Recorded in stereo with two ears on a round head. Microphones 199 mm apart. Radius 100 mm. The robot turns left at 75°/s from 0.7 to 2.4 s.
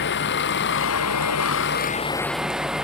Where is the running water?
125° left; by 2.8 s 5° right.